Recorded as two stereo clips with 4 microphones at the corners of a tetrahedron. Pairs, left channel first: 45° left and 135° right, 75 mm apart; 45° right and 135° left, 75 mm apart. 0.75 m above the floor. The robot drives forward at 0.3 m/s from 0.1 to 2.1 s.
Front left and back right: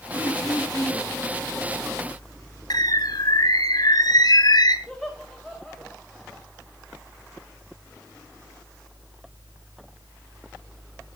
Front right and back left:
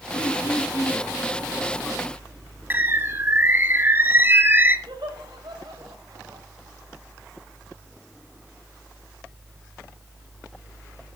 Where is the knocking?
No knocking in this recording.